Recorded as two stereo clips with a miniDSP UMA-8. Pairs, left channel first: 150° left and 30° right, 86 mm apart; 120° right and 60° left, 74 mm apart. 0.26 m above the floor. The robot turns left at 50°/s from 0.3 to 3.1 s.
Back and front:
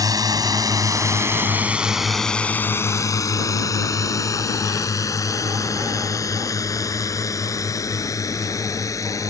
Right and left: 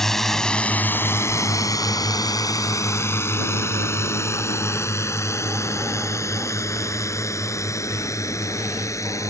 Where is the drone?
40° right; by 9.3 s 160° right.